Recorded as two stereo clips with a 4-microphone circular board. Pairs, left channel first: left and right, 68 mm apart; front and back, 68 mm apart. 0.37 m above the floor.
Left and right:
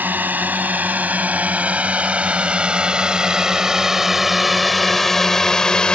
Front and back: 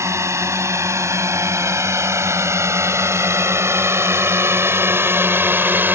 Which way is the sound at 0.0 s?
145° right.